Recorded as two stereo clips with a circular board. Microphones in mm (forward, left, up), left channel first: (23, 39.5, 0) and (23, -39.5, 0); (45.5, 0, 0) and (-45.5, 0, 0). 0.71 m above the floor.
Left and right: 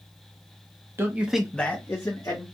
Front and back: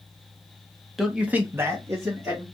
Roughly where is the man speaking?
Right.